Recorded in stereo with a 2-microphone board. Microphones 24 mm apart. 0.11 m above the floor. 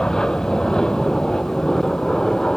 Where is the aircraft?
30° left (ahead or behind).